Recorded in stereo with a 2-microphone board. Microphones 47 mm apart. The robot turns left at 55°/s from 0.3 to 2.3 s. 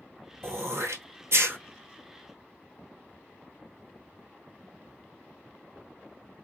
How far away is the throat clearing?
About 1.2 m.